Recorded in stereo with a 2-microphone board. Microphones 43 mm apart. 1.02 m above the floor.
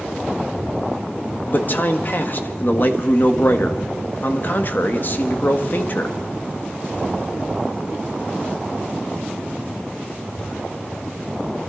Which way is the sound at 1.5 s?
45° left (ahead or behind).